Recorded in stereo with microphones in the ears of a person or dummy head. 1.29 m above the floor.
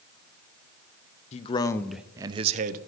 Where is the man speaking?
35° left (ahead or behind), 0.6 m; by 2.8 s 45° right (ahead or behind), 0.6 m.